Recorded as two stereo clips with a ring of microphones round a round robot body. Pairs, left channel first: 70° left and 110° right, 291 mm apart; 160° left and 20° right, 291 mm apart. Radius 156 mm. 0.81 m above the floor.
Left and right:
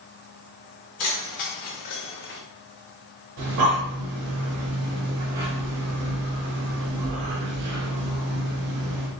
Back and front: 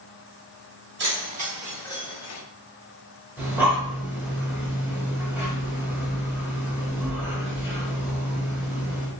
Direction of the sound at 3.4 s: 105° right.